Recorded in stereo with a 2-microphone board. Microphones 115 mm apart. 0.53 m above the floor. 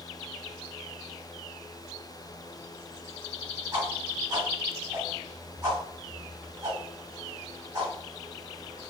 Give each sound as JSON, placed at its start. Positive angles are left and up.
{"t": 3.7, "sound": "a whoosh", "side_deg": -30, "distance_m": 1.4}